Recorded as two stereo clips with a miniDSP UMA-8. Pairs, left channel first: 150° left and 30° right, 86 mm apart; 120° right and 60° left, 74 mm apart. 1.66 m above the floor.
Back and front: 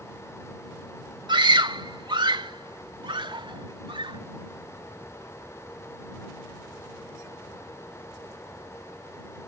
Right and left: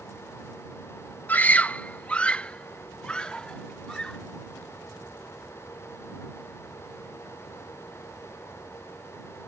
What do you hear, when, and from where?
1.3 s a scream: 55° right; by 4.2 s 40° right